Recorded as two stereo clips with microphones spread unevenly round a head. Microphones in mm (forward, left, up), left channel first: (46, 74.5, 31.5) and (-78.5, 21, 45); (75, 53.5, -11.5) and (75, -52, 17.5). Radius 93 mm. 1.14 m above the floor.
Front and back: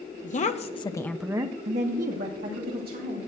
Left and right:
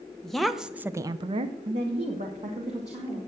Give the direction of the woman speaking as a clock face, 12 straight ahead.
12 o'clock.